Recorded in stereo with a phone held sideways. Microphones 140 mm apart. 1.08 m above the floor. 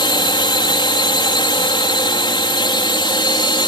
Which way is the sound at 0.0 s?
35° left (ahead or behind).